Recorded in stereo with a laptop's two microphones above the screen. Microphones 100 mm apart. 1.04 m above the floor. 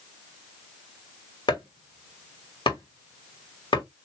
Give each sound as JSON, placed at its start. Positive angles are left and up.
{"t": 1.5, "sound": "chopping", "side_deg": 50, "distance_m": 1.8}